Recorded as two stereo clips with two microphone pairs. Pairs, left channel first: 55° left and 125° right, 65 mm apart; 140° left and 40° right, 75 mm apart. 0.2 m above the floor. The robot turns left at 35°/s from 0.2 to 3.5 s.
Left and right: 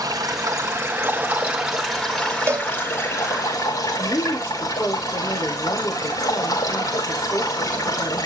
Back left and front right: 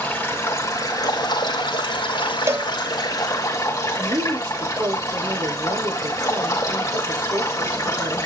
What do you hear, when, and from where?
0.0 s running water: 155° right, 5 m; by 8.3 s 90° left, 5 m
2.5 s a cowbell: 85° right, 0.7 m; by 2.7 s 90° right, 0.7 m
4.0 s a woman speaking: 5° right, 7.5 m